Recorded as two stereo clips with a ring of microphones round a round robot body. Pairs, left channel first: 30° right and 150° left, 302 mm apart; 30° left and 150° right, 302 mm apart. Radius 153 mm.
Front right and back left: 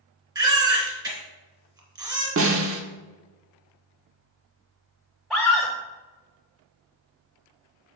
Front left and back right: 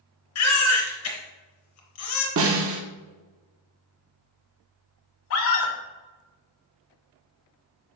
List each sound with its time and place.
0.3 s a baby crying: 70° left, 1.9 m
2.4 s a snare drum: straight behind, 1.0 m
5.3 s a scream: 60° left, 1.8 m